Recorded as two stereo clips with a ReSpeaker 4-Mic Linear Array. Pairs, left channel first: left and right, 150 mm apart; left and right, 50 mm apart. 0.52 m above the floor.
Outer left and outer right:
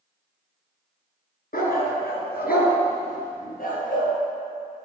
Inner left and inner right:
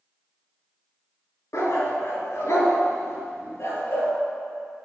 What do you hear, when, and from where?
1.5 s a dog barking: 75° left (ahead or behind), 1.9 m; by 4.1 s 65° left (ahead or behind), 3 m